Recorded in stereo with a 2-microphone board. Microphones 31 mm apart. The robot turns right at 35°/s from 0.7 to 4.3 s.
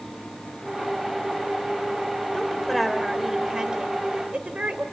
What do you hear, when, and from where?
2.3 s a woman speaking: 160° left, 2.5 m; by 4.8 s 130° right, 2.5 m